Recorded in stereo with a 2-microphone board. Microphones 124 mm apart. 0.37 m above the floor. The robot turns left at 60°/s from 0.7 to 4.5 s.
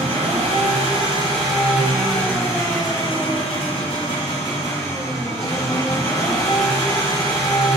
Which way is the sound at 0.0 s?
95° right.